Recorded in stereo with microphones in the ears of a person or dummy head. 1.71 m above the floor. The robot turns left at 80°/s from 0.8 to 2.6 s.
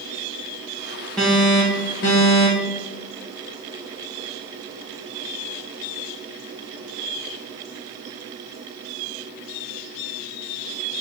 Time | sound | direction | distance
1.2 | an alarm | straight behind | 1.1 m